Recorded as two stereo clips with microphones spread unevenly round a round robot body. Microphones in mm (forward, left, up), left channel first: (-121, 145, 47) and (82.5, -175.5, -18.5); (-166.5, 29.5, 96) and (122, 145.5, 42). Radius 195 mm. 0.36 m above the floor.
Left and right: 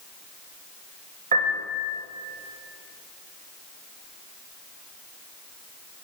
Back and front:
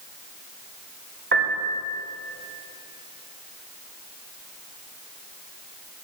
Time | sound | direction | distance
1.3 | a piano | straight ahead | 1.8 m